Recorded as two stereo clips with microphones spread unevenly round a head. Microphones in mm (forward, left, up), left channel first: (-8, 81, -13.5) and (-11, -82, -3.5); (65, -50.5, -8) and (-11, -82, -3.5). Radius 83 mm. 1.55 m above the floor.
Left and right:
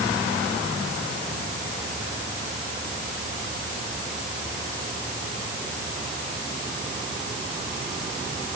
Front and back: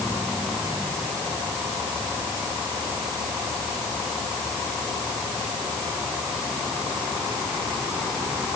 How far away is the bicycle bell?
I don't hear a bicycle bell.